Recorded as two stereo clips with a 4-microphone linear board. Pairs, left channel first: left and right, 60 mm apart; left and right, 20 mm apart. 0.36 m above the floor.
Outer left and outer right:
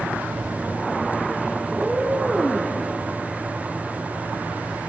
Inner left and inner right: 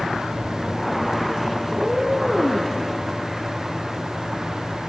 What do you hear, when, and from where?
1.7 s a cat meowing: 5° right (ahead or behind), 2.5 m